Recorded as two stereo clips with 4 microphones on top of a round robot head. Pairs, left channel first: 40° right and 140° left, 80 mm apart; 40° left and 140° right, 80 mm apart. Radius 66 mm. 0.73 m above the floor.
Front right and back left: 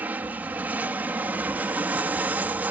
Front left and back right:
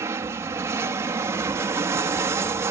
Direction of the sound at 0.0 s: 165° right.